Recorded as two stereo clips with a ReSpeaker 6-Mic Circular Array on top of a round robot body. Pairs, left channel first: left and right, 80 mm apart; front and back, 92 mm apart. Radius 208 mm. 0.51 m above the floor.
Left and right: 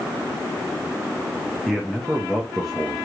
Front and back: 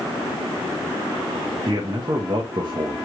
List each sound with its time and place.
1.7 s a man speaking: straight behind, 0.9 m